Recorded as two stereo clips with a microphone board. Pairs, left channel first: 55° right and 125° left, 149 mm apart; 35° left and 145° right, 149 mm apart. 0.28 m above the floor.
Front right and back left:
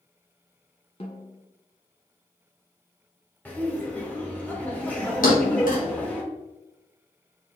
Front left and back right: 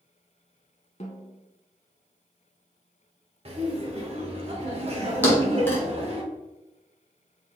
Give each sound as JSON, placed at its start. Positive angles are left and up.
{"t": 1.0, "sound": "a snare drum", "azimuth_deg": -5, "distance_m": 0.9}
{"t": 3.5, "sound": "laughter", "azimuth_deg": -130, "distance_m": 1.2}
{"t": 5.2, "sound": "a thud", "azimuth_deg": -40, "distance_m": 2.0}